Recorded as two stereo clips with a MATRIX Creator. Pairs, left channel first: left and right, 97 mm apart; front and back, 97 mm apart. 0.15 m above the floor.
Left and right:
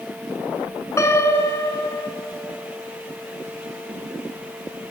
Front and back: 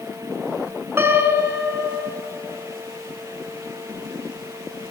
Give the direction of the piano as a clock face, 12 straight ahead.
8 o'clock.